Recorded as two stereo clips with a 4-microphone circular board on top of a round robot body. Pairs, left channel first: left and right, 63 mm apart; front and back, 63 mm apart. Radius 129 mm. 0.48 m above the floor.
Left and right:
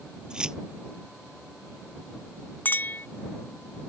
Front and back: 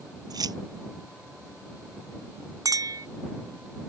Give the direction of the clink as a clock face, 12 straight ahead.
7 o'clock.